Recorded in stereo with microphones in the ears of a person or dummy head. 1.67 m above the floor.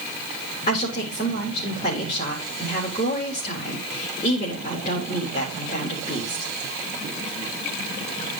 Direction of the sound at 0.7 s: 40° left (ahead or behind).